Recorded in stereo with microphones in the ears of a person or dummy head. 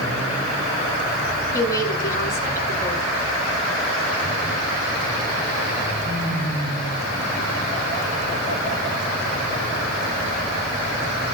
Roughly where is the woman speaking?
Left.